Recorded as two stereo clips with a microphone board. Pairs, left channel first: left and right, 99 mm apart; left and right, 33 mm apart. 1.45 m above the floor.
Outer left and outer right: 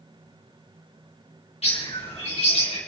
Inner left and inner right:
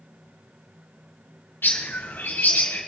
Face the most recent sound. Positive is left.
turn(degrees=85)